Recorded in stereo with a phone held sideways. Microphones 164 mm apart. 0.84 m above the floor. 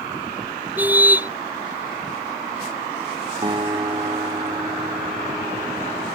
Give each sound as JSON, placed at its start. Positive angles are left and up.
{"t": 0.8, "sound": "a car horn", "side_deg": -10}
{"t": 3.4, "sound": "a guitar", "side_deg": -30}